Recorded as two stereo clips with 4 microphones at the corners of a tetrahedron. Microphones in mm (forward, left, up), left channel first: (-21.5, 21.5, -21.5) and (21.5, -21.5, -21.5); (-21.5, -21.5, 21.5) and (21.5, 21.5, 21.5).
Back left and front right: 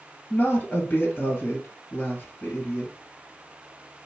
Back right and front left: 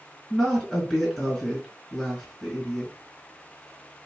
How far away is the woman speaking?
About 1.8 m.